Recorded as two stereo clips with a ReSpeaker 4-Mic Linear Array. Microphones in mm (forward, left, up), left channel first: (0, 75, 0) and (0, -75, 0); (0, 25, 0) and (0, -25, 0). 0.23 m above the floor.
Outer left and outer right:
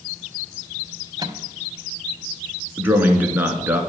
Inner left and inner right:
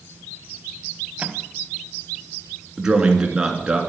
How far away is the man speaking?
About 3 m.